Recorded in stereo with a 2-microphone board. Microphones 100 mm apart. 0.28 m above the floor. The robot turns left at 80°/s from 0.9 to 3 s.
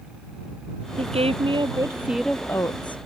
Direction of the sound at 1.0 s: 80° right.